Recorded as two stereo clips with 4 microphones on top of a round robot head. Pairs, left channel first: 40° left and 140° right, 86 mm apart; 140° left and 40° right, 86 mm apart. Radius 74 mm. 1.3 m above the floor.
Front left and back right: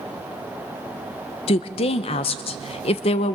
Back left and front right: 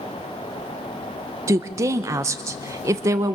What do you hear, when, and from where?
1.5 s a woman speaking: 20° left, 0.8 m